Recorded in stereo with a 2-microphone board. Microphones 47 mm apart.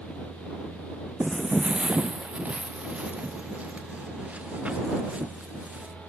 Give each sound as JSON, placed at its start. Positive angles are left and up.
{"t": 1.2, "sound": "footsteps", "side_deg": -20}